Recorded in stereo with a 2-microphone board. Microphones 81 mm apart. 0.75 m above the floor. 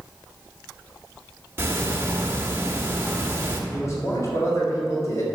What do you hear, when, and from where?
1.6 s ticking: 30° right (ahead or behind), 1.2 m
3.7 s a man speaking: 40° left (ahead or behind), 3.5 m